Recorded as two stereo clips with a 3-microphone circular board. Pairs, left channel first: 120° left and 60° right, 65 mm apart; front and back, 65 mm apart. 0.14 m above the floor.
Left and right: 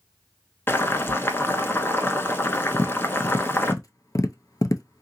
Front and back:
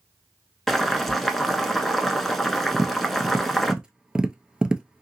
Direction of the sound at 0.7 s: 85° left.